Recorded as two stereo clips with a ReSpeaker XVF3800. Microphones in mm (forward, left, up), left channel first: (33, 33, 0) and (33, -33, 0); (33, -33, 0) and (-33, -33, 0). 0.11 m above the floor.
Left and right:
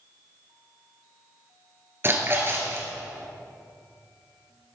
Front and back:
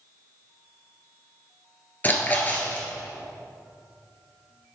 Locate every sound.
2.0 s a splash: 55° right, 1.6 m